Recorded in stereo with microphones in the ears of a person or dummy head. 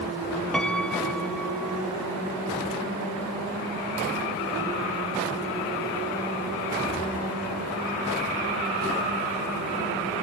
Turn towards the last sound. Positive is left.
turn(degrees=5)  # may be behind; listen again after turning